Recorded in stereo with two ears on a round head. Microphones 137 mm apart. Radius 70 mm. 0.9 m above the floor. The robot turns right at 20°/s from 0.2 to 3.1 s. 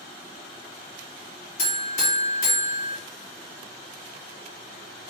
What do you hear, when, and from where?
1.6 s a buzzer: 55° left (ahead or behind), 1.5 m